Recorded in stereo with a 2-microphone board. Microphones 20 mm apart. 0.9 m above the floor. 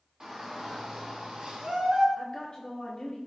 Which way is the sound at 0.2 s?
30° right (ahead or behind).